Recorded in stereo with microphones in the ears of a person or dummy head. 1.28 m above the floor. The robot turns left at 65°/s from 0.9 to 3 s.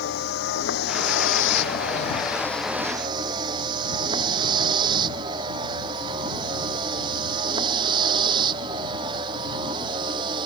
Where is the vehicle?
65° left (ahead or behind); by 10.5 s 25° right (ahead or behind).